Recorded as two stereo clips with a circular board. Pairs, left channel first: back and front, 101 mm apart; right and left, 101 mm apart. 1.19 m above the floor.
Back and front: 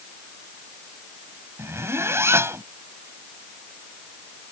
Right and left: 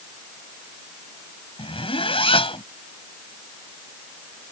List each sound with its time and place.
1.6 s a zipper: 65° right